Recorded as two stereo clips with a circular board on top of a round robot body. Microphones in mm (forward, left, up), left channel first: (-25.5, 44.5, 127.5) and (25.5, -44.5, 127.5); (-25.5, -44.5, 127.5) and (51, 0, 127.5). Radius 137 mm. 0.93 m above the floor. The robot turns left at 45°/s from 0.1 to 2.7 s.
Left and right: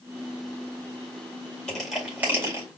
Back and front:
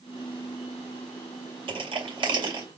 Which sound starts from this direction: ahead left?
Crushing, at 1.7 s.